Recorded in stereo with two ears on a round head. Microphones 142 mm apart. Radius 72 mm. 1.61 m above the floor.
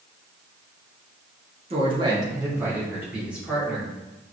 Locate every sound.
1.7 s a woman speaking: 35° right (ahead or behind), 0.9 m; by 3.9 s 5° right (ahead or behind), 1.9 m